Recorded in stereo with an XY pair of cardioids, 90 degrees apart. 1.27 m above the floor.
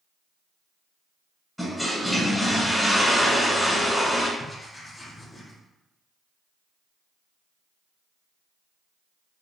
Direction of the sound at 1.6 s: 5° left.